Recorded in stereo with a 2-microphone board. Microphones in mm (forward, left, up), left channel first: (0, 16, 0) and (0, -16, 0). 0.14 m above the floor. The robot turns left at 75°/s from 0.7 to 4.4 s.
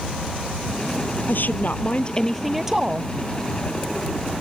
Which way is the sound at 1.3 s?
90° left.